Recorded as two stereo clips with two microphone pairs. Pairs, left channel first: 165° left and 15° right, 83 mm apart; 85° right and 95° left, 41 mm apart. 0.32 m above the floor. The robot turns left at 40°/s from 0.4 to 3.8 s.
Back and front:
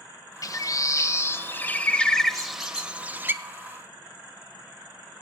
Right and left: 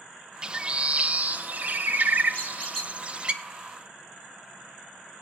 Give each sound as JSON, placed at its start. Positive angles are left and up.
{"t": 0.4, "sound": "a bird", "azimuth_deg": 155, "distance_m": 0.5}
{"t": 2.3, "sound": "a squeak", "azimuth_deg": -145, "distance_m": 2.5}